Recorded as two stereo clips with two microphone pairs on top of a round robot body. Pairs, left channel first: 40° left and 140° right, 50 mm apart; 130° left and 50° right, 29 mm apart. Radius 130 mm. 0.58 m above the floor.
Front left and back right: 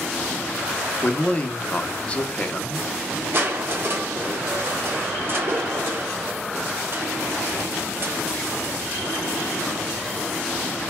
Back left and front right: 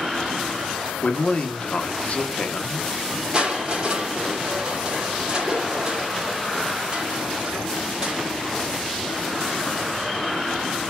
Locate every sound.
1.0 s a man speaking: 115° left, 0.7 m
3.3 s crushing: 105° right, 0.9 m